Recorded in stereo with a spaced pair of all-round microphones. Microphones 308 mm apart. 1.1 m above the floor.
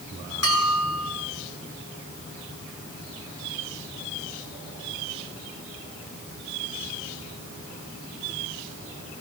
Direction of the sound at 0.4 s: 50° left (ahead or behind).